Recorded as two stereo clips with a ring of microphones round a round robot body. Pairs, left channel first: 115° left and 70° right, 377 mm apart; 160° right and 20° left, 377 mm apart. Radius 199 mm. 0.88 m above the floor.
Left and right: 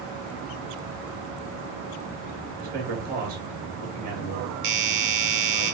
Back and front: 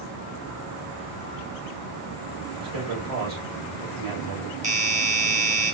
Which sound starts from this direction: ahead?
A man speaking, at 2.6 s.